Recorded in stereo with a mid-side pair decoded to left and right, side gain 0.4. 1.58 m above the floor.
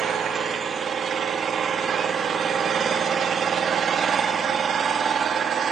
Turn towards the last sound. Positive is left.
turn(degrees=-65)